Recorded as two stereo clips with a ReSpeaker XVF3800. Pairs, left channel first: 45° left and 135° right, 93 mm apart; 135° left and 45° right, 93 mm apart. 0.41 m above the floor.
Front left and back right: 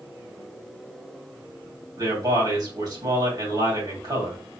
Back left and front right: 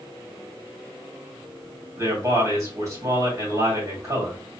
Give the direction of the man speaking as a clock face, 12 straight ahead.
3 o'clock.